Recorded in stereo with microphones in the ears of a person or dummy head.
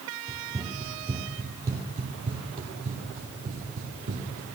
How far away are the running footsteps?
About 2.5 m.